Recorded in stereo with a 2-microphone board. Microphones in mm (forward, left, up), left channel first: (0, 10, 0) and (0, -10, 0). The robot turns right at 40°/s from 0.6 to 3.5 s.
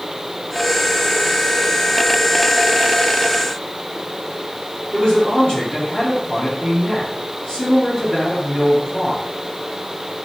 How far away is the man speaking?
About 4.5 m.